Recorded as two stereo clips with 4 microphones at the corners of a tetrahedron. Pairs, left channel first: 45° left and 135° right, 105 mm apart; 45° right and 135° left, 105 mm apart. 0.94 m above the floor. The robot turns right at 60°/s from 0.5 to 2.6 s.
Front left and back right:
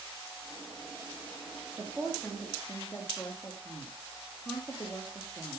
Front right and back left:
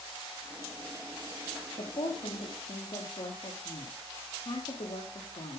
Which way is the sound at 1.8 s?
70° right.